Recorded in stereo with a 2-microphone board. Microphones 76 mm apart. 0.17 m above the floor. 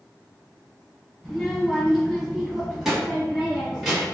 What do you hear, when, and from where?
1.2 s a child speaking: 5° left (ahead or behind), 1.3 m; by 4.0 s 5° right (ahead or behind), 1.5 m